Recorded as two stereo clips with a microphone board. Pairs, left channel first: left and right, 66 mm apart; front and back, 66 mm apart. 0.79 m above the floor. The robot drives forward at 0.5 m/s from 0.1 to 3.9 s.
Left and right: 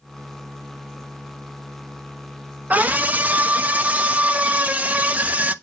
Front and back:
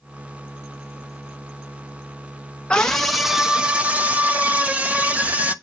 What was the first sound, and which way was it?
A scream, 55° right.